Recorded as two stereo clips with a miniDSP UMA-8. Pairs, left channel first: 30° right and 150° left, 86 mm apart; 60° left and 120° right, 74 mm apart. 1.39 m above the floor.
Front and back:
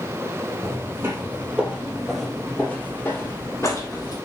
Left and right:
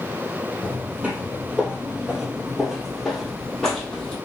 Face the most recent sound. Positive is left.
turn(degrees=-15)